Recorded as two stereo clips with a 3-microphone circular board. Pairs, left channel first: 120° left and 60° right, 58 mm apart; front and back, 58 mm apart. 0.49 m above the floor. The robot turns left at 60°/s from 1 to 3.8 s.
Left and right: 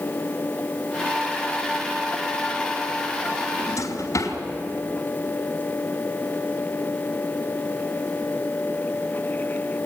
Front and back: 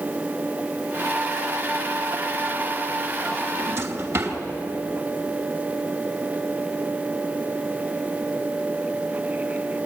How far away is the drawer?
About 3 m.